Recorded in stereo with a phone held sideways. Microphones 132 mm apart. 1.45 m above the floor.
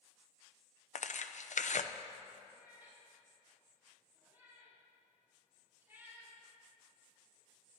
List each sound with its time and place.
0.9 s tearing paper: 65° left (ahead or behind), 0.5 m
2.5 s a cat meowing: 15° right (ahead or behind), 5 m